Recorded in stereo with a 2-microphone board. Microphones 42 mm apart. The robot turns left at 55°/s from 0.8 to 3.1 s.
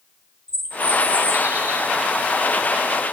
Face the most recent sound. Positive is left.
turn(degrees=-140)